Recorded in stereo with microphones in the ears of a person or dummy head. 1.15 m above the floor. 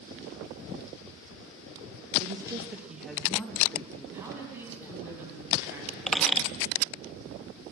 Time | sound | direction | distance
2.2 | a woman speaking | 30° right (ahead or behind) | 1.3 m
4.1 | a man speaking | 10° right (ahead or behind) | 9 m
6.1 | a squeak | 5° left (ahead or behind) | 0.8 m